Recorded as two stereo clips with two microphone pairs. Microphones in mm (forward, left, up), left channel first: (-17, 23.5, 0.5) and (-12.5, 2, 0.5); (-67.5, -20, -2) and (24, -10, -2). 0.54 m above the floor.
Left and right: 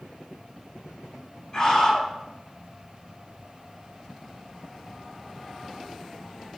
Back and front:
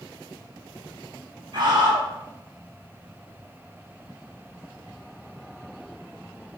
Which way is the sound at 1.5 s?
40° left.